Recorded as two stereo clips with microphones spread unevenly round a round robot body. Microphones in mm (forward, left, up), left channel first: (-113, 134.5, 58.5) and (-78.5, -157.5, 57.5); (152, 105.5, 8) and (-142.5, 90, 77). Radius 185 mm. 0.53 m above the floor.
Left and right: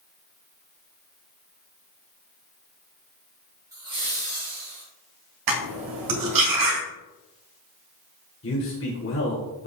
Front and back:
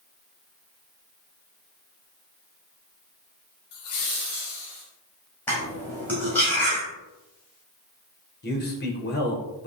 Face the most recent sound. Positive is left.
turn(degrees=50)